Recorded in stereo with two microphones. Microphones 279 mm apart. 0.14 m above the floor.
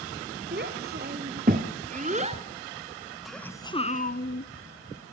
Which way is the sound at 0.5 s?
35° right (ahead or behind).